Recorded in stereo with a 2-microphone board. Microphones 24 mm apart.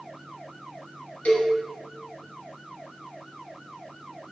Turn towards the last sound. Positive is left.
turn(degrees=65)  # may be behind; listen again after turning